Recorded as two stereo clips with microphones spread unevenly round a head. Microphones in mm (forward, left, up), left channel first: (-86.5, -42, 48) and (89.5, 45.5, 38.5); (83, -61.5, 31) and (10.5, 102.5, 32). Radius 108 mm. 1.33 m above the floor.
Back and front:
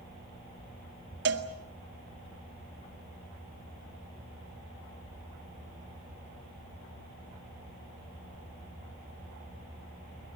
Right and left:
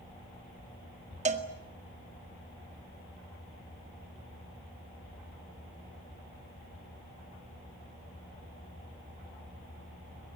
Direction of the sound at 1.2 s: 60° left.